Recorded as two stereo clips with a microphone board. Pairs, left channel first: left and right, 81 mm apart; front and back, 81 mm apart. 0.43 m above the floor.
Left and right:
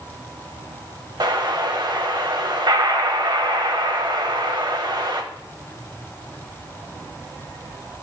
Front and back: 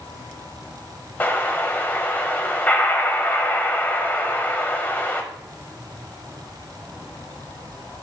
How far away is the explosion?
About 1.0 m.